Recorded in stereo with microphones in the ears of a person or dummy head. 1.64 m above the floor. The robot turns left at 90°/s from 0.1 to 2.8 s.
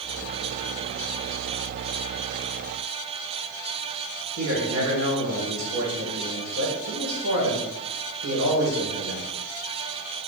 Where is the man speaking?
80° right, 1.7 m.